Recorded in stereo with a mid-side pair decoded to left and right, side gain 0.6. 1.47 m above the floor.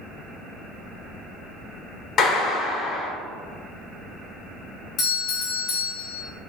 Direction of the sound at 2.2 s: 50° left.